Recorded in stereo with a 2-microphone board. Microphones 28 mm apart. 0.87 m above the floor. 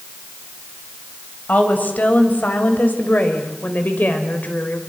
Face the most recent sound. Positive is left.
turn(degrees=70)  # may be behind; listen again after turning